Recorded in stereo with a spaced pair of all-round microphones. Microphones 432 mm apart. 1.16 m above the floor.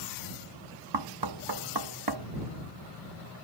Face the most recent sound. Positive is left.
turn(degrees=-60)  # may be behind; listen again after turning